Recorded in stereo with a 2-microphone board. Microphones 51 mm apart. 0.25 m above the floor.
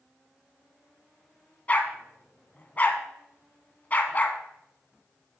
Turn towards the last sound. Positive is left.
turn(degrees=30)  # may be behind; listen again after turning